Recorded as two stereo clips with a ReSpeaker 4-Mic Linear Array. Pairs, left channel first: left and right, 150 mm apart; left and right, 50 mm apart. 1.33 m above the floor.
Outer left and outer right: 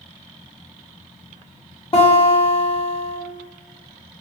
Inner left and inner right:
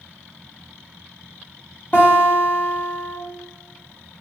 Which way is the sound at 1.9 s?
40° left (ahead or behind).